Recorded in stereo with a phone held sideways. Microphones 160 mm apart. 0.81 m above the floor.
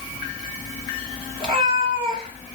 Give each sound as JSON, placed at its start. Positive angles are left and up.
{"t": 1.4, "sound": "a cat meowing", "side_deg": -35, "distance_m": 0.9}